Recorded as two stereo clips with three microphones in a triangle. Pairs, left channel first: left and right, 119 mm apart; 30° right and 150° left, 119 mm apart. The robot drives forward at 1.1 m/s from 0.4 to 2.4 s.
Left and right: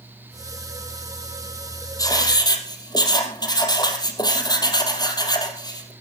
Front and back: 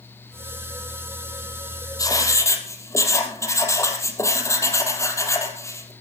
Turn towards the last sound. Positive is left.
turn(degrees=35)